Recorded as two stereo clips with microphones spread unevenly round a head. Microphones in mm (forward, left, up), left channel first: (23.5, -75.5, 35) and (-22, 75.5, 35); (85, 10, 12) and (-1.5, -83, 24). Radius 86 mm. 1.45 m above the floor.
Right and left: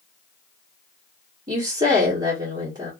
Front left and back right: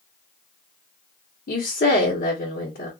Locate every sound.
1.5 s a woman speaking: 45° left, 1.1 m